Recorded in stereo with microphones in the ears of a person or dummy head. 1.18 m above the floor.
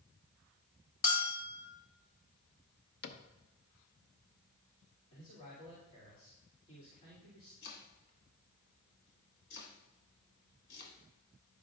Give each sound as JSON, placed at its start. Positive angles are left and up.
{"t": 1.0, "sound": "a bell", "side_deg": 60, "distance_m": 1.5}
{"t": 3.0, "sound": "a cupboard door", "side_deg": 50, "distance_m": 0.6}
{"t": 5.1, "sound": "a man speaking", "side_deg": 35, "distance_m": 3.0}
{"t": 7.6, "sound": "chopping", "side_deg": 55, "distance_m": 1.6}